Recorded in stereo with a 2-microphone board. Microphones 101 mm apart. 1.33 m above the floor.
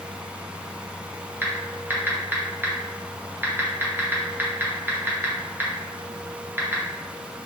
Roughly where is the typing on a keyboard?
Right.